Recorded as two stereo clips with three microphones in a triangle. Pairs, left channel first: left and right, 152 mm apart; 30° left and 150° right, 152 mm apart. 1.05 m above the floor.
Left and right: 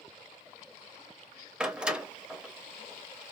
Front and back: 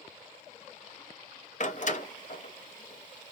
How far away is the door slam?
About 0.6 m.